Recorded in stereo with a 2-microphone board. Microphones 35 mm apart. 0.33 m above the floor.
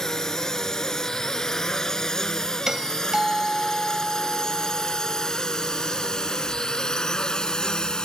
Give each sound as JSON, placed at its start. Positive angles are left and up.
{"t": 0.0, "sound": "a drone", "side_deg": 15}
{"t": 2.7, "sound": "a doorbell", "side_deg": -20}